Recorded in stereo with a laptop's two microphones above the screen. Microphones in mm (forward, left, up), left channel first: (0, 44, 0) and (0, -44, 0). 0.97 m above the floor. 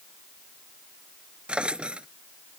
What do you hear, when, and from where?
1.5 s a drawer: 15° right (ahead or behind)